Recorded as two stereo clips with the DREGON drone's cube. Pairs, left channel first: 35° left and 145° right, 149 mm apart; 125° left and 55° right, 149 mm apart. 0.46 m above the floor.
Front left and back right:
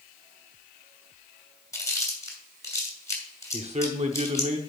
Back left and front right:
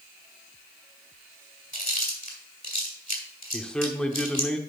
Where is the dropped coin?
I don't hear a dropped coin.